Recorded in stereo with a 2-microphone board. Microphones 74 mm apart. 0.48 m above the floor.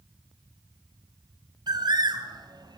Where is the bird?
75° right (ahead or behind), 2.5 m.